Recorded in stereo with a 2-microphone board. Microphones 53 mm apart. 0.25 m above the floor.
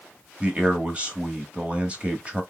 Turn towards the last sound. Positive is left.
turn(degrees=-20)  # may be behind; listen again after turning